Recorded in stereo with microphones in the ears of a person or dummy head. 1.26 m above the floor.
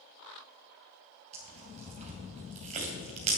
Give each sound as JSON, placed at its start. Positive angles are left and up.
{"t": 1.3, "sound": "tearing paper", "side_deg": -35, "distance_m": 3.0}